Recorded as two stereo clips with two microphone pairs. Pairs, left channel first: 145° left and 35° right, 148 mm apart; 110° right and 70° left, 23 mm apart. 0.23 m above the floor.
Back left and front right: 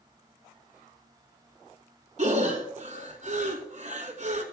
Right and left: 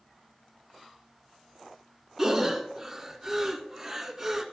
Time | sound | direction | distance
2.2 | breathing | 5° right | 1.4 m